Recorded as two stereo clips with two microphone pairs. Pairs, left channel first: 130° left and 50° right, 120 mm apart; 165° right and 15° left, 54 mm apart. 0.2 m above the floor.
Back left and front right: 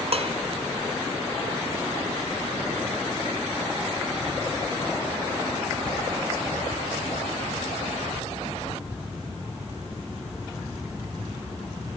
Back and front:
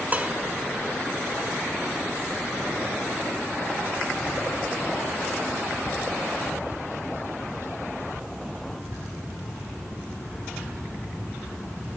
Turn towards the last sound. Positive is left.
turn(degrees=-40)